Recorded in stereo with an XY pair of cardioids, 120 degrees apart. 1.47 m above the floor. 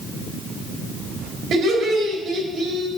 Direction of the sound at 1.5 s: 60° right.